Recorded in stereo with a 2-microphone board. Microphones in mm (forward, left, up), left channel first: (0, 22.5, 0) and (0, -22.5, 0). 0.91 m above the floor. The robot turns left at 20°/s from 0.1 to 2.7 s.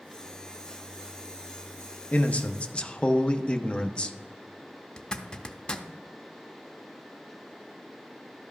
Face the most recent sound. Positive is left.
turn(degrees=20)  # may be behind; listen again after turning